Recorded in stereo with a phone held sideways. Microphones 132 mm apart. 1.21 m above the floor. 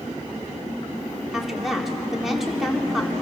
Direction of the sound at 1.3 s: Centre (ahead or behind).